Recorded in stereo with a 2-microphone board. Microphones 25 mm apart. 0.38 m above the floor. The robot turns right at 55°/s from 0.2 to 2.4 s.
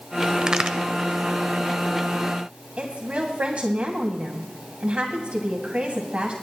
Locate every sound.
0.4 s a crack: 35° right (ahead or behind), 0.8 m; by 0.8 s 50° right (ahead or behind), 0.8 m
2.8 s a woman speaking: 55° right (ahead or behind), 2 m